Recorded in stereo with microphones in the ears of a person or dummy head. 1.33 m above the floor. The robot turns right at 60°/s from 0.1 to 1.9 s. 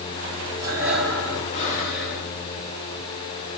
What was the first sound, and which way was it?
Breathing, 25° right.